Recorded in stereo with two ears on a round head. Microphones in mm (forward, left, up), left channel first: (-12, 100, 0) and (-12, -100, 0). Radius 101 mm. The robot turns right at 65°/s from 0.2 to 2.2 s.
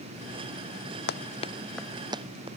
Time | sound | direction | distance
1.1 | running footsteps | 50° left (ahead or behind) | ?